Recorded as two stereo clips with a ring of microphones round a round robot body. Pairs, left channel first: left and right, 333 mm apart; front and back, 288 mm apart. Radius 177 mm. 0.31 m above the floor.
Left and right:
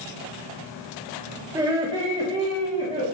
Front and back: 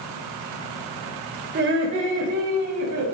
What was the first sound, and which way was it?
Laughter, 160° right.